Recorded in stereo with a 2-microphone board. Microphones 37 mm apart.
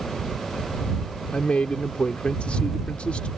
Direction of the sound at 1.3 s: 35° left (ahead or behind).